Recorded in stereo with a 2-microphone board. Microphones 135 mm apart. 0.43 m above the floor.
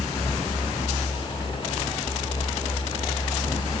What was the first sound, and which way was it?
Only background noise.